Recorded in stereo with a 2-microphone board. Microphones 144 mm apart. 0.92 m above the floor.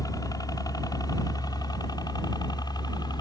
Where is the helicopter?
25° left (ahead or behind); by 3.2 s 30° left (ahead or behind).